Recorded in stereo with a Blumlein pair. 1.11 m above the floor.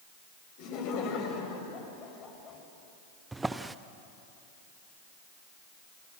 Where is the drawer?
10° right, 0.8 m.